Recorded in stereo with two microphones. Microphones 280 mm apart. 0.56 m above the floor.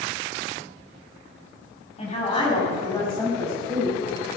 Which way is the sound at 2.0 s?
20° left (ahead or behind).